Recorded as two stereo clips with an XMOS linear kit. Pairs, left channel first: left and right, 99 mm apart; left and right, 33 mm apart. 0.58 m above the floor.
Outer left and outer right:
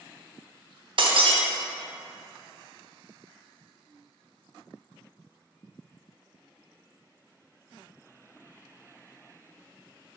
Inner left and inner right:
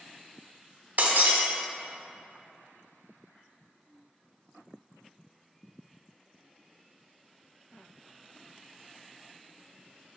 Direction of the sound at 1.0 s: 65° right (ahead or behind).